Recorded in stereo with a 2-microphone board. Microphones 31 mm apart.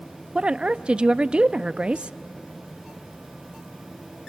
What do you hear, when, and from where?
0.3 s a woman speaking: 30° right (ahead or behind), 0.5 m